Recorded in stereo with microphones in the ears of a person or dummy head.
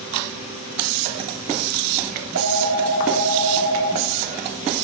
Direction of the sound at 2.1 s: 75° right (ahead or behind).